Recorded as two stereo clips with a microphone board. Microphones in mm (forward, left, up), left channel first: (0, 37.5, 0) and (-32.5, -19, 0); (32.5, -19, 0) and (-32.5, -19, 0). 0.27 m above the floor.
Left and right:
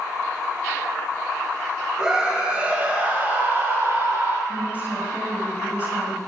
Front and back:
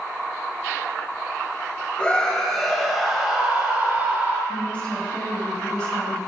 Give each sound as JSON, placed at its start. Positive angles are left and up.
{"t": 2.0, "sound": "a scream", "azimuth_deg": -55, "distance_m": 1.6}
{"t": 4.5, "sound": "a woman speaking", "azimuth_deg": -70, "distance_m": 1.9}